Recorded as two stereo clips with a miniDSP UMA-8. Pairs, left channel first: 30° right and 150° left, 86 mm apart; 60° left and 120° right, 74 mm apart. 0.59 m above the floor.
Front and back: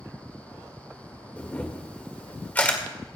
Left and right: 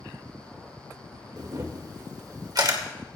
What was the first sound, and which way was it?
A camera shutter, 100° right.